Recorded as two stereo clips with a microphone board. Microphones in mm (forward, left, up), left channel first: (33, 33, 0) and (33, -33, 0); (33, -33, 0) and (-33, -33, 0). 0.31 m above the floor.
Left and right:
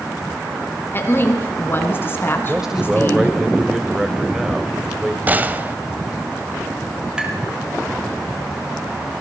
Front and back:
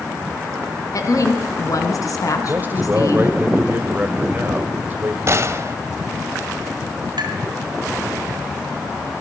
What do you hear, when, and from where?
0.9 s a woman speaking: 35° left, 3 m
2.5 s a man speaking: 165° right, 1.5 m
5.3 s a gunshot: 145° right, 1.0 m
7.2 s tapping: 170° right, 2.5 m